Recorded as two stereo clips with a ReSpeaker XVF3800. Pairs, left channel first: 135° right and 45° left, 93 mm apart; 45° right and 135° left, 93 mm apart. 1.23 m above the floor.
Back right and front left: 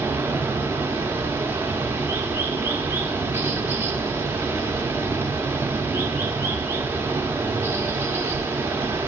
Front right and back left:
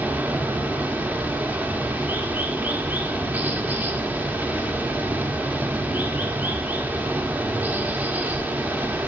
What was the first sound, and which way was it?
Running water, 80° left.